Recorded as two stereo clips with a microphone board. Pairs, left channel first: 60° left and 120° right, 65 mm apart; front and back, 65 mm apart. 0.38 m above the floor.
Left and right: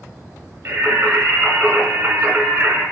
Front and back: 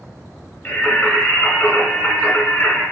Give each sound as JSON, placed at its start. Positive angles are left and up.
{"t": 0.7, "sound": "singing", "azimuth_deg": -60, "distance_m": 2.0}